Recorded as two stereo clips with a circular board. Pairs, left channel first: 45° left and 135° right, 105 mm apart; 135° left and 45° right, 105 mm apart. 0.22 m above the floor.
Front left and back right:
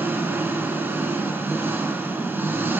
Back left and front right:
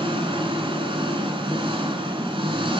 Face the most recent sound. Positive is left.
turn(degrees=-65)